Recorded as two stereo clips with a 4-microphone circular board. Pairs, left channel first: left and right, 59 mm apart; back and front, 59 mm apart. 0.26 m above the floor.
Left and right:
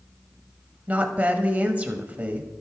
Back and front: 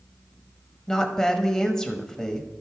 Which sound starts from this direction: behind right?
A woman speaking, at 0.9 s.